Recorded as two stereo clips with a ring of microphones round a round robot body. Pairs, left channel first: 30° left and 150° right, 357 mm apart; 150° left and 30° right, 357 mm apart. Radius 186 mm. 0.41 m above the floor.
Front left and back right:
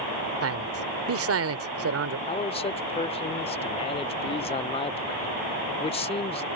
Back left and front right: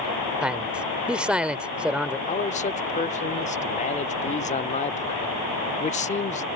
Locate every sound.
0.4 s a man speaking: 115° right
2.3 s a man speaking: 95° left